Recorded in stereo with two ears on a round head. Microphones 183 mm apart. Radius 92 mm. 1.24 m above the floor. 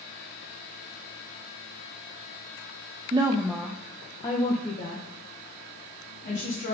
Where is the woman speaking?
25° right (ahead or behind), 0.6 m; by 6.7 s 45° left (ahead or behind), 2.5 m.